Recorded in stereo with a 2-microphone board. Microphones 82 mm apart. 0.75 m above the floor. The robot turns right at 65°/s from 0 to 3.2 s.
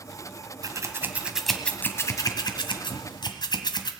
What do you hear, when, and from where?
0.6 s scissors: 50° right (ahead or behind), 1.5 m; by 3.9 s 65° left (ahead or behind), 1.5 m